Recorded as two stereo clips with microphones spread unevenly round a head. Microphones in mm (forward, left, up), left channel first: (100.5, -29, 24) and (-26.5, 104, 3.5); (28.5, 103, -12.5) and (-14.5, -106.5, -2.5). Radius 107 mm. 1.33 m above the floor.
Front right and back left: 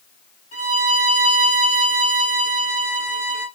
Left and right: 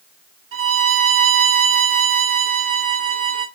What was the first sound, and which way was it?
A violin, 95° right.